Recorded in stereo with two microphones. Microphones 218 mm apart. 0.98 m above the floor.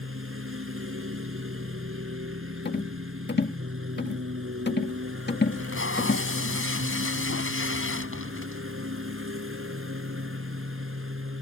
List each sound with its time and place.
0.0 s a lawn mower: 80° right
2.6 s a rattle: 50° left (ahead or behind)
5.5 s tape being pulled: 70° left (ahead or behind)